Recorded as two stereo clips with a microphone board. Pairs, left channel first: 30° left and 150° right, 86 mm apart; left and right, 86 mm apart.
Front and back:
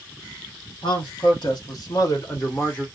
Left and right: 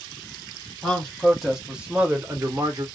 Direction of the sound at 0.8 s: 5° left.